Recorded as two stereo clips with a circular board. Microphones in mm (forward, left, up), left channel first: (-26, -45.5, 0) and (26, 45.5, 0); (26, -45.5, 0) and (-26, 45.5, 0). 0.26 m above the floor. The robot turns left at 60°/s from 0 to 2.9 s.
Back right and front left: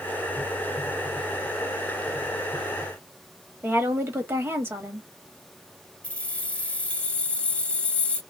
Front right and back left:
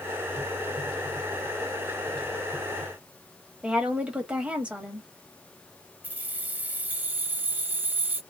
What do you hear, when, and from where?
3.6 s a woman speaking: 65° left, 1.1 m
6.0 s keys jangling: 175° left, 0.7 m